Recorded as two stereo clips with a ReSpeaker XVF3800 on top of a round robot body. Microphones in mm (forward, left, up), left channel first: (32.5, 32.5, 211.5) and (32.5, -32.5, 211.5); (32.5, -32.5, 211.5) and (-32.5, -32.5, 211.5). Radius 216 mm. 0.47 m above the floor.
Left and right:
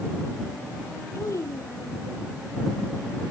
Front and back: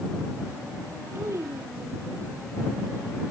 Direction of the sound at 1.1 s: 130° left.